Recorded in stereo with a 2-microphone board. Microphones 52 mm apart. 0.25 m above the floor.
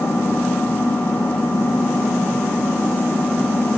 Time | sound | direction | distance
0.0 | an engine running | 60° left (ahead or behind) | 5.5 m